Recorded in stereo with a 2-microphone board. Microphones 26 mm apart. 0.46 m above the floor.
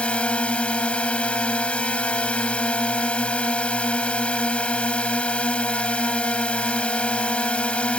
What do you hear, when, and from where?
0.0 s a drone: 55° left (ahead or behind)